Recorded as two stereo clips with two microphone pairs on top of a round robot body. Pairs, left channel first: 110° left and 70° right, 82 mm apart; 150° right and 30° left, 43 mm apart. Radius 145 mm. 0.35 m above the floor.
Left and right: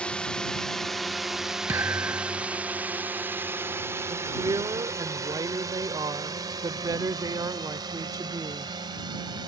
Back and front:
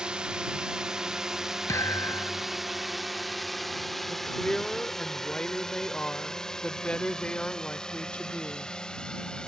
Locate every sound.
0.0 s a drone: 40° left; by 9.5 s 80° right
1.7 s a thud: 135° right
4.1 s a woman speaking: 90° right